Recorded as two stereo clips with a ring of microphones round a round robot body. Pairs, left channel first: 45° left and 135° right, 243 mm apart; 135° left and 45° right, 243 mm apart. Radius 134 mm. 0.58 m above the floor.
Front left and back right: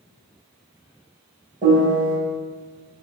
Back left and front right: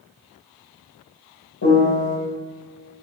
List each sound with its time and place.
1.6 s a piano: 165° left, 3.5 m